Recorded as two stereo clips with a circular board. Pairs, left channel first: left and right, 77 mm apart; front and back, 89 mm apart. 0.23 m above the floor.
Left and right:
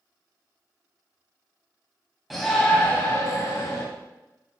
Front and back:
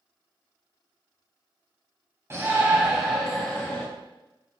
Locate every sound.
2.3 s a shout: straight behind, 1.4 m; by 3.8 s 70° left, 2.0 m